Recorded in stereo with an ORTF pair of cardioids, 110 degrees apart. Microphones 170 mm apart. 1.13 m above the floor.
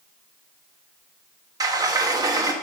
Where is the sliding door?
20° right, 1.0 m.